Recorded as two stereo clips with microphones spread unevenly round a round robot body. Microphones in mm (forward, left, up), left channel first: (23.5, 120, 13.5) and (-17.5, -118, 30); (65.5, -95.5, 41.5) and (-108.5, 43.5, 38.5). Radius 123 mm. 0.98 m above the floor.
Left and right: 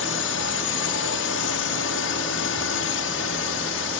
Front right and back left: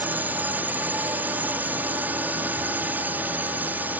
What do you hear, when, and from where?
0.0 s a drone: 60° left